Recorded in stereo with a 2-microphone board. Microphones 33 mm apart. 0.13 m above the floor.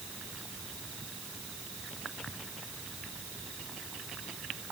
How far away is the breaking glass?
I don't hear breaking glass.